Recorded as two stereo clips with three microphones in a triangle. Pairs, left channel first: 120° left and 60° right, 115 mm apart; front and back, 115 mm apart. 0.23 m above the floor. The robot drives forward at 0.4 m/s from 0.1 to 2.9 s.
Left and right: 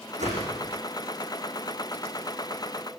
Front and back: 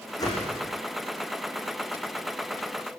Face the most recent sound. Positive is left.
turn(degrees=-65)